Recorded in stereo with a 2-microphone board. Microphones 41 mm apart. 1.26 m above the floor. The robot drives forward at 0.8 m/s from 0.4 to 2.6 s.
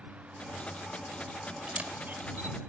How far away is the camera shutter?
About 1.9 m.